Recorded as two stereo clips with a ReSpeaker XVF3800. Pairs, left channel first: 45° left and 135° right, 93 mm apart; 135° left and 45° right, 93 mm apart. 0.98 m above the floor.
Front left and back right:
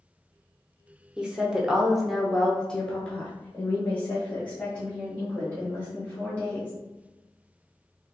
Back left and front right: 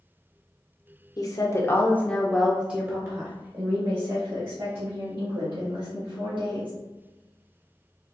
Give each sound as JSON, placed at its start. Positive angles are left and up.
{"t": 1.2, "sound": "a woman speaking", "azimuth_deg": 150, "distance_m": 0.9}